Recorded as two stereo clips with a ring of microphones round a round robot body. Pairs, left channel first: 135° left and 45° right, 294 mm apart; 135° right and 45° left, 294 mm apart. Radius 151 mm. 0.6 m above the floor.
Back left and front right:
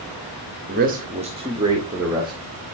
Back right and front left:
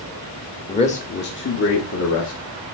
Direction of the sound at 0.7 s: 75° right.